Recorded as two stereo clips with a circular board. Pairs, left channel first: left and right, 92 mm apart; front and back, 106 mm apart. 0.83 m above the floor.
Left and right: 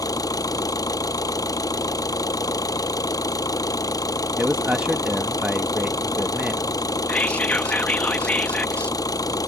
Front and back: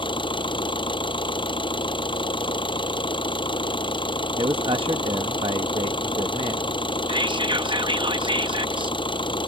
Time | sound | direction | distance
0.0 | an engine running | 40° left | ?
4.4 | a man speaking | 165° right | ?
7.1 | whispering | 160° left | ?